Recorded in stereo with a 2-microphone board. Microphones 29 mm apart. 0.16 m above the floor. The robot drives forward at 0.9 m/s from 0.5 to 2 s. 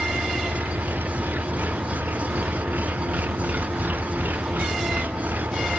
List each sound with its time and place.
0.0 s an engine running: 90° right; by 5.8 s 85° right